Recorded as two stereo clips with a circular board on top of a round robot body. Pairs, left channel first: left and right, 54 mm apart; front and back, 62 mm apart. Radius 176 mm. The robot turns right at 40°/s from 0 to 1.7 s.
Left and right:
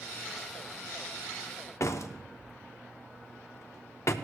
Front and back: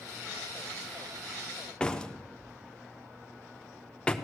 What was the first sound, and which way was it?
A door slam, 75° left.